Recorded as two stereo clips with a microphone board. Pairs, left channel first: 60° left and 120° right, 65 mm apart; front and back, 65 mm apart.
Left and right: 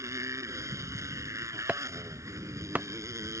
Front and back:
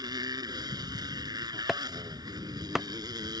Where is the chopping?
105° right.